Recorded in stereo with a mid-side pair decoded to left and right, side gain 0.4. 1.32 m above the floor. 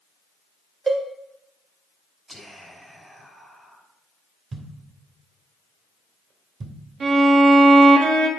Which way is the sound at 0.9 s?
30° right.